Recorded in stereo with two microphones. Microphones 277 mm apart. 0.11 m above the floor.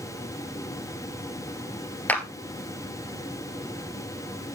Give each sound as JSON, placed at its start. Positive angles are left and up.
{"t": 2.1, "sound": "a clap", "side_deg": 5, "distance_m": 1.8}